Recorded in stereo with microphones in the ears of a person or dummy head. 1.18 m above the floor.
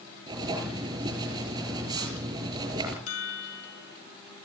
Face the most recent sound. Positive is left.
turn(degrees=80)